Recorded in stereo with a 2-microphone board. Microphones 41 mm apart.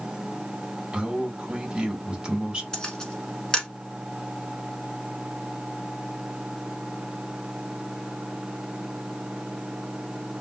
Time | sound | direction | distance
0.9 | a man speaking | 20° right (ahead or behind) | 1.3 m
2.7 | a camera shutter | 15° left (ahead or behind) | 1.2 m